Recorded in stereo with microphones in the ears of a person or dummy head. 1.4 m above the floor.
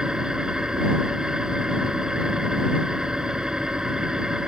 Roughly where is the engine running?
Centre.